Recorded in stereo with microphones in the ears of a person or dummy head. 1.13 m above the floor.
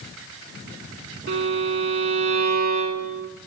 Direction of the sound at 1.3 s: 60° right (ahead or behind).